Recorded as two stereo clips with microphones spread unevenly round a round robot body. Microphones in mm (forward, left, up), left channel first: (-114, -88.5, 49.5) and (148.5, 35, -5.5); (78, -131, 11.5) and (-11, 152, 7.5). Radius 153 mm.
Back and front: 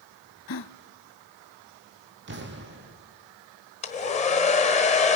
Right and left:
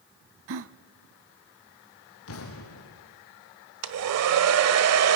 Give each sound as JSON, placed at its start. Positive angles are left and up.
{"t": 0.5, "sound": "a gasp", "azimuth_deg": 160, "distance_m": 0.5}
{"t": 2.3, "sound": "an explosion", "azimuth_deg": -30, "distance_m": 2.5}
{"t": 3.8, "sound": "a hair dryer", "azimuth_deg": 135, "distance_m": 1.3}